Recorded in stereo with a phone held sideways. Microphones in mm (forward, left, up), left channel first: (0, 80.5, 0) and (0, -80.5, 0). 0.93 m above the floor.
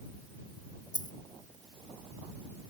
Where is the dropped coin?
55° left (ahead or behind).